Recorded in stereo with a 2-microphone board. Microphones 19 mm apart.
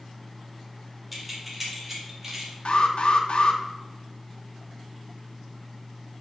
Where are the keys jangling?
5° right (ahead or behind), 1.9 m; by 2.5 s 25° right (ahead or behind), 2.5 m.